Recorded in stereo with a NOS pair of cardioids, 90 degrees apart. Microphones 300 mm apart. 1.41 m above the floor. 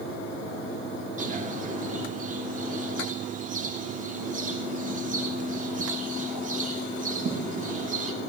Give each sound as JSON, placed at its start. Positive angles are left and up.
{"t": 1.2, "sound": "a bird", "azimuth_deg": -25, "distance_m": 2.0}